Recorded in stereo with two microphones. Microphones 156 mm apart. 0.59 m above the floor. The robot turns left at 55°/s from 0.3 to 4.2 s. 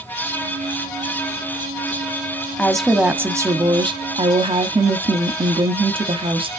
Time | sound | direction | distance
2.6 | a woman speaking | 10° left | 0.9 m